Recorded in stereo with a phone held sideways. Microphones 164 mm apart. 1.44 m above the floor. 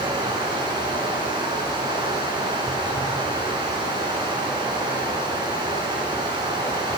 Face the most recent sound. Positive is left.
turn(degrees=-30)  # may be behind; listen again after turning